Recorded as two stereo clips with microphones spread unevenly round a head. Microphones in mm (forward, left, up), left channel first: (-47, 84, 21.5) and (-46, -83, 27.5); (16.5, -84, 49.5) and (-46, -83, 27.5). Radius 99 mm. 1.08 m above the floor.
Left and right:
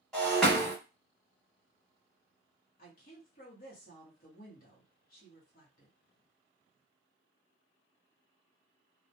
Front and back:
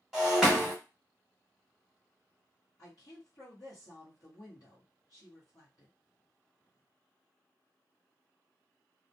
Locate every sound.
0.1 s breaking glass: straight ahead, 0.9 m
2.8 s a woman speaking: 50° left, 0.8 m